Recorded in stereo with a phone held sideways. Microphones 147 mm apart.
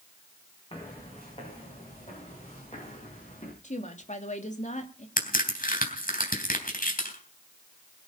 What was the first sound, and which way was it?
Footsteps, 40° left (ahead or behind).